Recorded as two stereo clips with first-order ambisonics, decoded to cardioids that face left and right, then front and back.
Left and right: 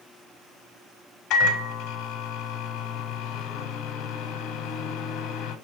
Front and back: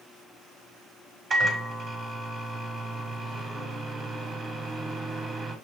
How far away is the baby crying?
I don't hear a baby crying.